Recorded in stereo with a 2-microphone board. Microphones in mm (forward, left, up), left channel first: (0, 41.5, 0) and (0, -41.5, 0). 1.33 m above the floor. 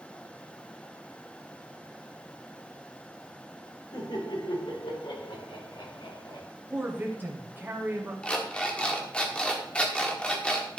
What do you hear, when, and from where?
3.9 s laughter: 80° left, 4.5 m; by 6.5 s 75° left (ahead or behind), 3 m
6.7 s a woman speaking: 20° right (ahead or behind), 1.3 m
8.2 s an alarm clock: 10° left (ahead or behind), 1.3 m